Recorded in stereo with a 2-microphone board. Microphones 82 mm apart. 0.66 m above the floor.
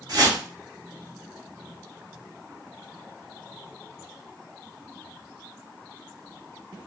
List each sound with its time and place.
0.1 s a whoosh: 55° right (ahead or behind), 2.5 m